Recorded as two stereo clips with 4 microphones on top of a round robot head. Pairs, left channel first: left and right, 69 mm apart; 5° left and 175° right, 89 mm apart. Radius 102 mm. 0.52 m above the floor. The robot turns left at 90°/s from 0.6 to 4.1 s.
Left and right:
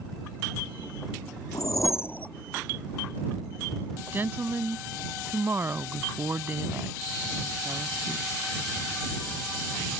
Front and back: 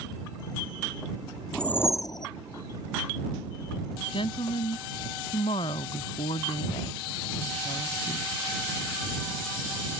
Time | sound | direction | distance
1.5 | a whoosh | 90° left | ?
4.1 | a woman speaking | 30° right | ?